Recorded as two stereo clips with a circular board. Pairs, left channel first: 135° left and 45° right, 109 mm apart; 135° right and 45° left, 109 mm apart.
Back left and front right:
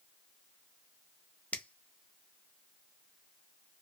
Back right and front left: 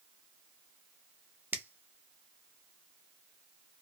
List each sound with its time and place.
1.5 s a finger snap: 80° left, 0.6 m